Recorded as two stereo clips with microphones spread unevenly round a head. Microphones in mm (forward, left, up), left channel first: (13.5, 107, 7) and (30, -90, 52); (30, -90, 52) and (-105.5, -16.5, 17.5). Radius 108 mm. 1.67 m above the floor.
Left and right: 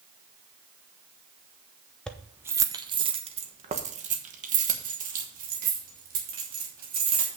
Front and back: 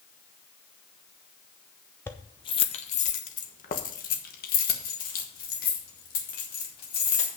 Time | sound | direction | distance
2.1 | keys jangling | 15° right | 0.6 m